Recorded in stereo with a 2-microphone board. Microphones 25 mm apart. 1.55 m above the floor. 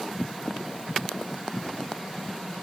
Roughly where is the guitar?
I don't hear a guitar.